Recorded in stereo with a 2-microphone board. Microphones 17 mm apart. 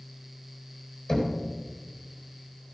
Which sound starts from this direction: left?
Knocking, at 1.1 s.